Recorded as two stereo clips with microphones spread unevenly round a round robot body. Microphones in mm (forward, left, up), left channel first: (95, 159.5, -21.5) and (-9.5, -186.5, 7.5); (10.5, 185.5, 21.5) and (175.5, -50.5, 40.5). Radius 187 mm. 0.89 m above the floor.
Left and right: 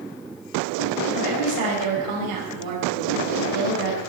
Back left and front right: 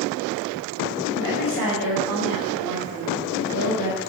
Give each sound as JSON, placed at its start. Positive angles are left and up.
{"t": 1.1, "sound": "a woman speaking", "azimuth_deg": -75, "distance_m": 5.0}